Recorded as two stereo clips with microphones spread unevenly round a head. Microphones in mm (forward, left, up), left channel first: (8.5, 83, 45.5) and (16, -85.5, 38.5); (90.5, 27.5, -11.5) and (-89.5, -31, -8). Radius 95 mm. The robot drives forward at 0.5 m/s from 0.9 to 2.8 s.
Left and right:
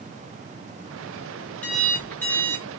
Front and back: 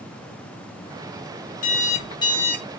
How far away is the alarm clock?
About 0.8 m.